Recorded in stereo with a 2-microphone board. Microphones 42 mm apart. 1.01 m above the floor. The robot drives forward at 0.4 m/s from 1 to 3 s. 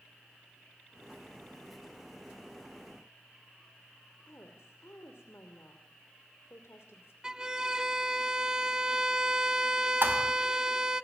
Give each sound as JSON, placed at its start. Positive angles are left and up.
{"t": 4.2, "sound": "a woman speaking", "side_deg": 85, "distance_m": 2.5}
{"t": 7.2, "sound": "a violin", "side_deg": -20, "distance_m": 0.6}
{"t": 10.0, "sound": "a thud", "side_deg": -60, "distance_m": 3.0}